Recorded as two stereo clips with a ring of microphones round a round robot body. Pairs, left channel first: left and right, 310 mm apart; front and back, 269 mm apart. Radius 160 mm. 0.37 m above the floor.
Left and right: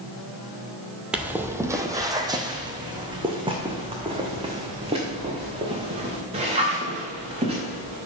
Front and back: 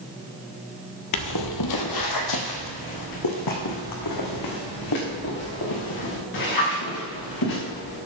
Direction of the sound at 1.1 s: 5° right.